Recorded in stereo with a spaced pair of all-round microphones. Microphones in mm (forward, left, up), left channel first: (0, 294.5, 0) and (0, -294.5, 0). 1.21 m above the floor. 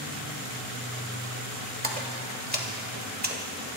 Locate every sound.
1.8 s a splash: 15° right (ahead or behind), 1.5 m